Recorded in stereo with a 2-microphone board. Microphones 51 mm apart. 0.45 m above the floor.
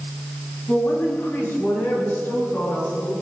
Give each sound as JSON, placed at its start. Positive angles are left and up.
{"t": 0.7, "sound": "a woman speaking", "side_deg": 50, "distance_m": 5.0}